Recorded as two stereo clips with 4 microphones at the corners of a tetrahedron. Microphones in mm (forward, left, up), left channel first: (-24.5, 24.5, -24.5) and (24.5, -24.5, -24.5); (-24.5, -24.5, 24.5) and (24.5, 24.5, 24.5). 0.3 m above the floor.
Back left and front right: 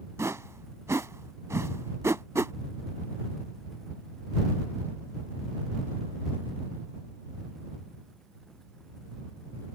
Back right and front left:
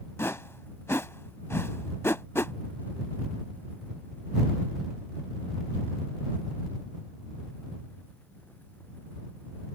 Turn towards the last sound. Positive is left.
turn(degrees=-85)